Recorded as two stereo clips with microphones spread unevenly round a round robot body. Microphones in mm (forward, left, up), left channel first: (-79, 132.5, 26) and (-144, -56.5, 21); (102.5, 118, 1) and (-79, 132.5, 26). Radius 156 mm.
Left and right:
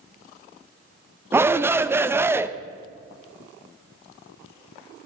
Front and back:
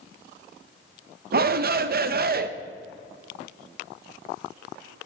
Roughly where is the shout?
Behind.